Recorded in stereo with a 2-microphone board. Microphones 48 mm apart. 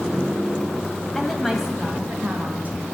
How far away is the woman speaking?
About 1.4 m.